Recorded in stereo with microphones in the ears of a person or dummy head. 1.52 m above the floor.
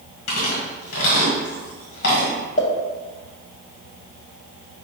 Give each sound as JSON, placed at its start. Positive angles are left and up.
{"t": 0.3, "sound": "chewing", "side_deg": 70, "distance_m": 1.5}
{"t": 2.6, "sound": "a pop", "side_deg": 45, "distance_m": 0.8}